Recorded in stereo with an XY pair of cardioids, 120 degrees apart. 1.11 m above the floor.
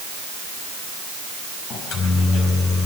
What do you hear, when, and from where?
1.7 s a microwave: 70° left, 5 m